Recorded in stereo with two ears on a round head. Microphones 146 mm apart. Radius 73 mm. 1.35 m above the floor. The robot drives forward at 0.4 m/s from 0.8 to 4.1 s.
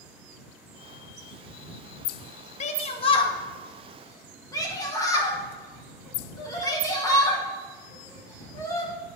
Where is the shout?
45° left (ahead or behind), 0.6 m; by 8.9 s 25° left (ahead or behind), 1.1 m.